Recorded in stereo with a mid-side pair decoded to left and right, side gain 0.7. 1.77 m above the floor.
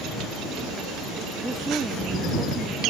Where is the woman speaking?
15° right; by 2.9 s 10° right.